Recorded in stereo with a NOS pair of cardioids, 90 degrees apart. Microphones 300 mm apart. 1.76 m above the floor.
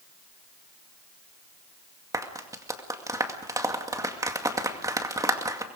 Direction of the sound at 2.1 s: 10° right.